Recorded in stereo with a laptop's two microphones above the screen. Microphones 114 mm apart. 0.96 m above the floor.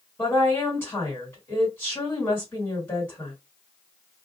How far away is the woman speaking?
About 1.6 m.